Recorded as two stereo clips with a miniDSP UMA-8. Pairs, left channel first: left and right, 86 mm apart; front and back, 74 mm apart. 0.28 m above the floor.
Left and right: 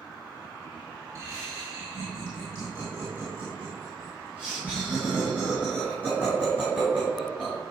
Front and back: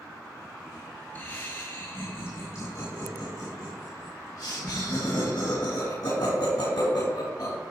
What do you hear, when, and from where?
1.1 s laughter: 55° right, 2 m; by 7.6 s 10° right, 5 m